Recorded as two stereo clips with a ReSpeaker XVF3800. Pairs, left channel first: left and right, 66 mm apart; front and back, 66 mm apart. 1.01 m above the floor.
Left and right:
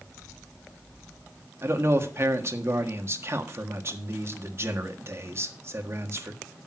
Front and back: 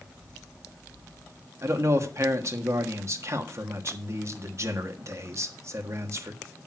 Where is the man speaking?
135° right, 1.5 m.